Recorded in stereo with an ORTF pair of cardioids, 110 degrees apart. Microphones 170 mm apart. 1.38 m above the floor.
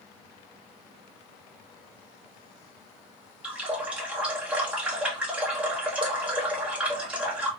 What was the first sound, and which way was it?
A running tap, 5° right.